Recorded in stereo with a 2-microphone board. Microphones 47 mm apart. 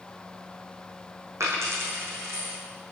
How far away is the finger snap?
I don't hear a finger snap.